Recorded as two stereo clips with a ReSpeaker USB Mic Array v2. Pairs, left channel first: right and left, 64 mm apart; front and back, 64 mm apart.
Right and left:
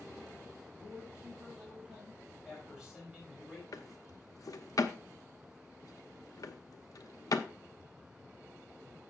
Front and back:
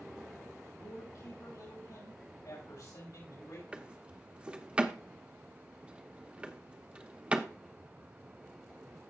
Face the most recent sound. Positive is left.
turn(degrees=-110)